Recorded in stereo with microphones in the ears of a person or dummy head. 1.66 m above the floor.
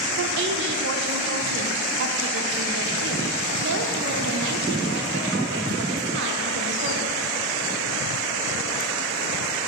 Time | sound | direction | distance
0.2 | a woman speaking | 60° right (ahead or behind) | 0.7 m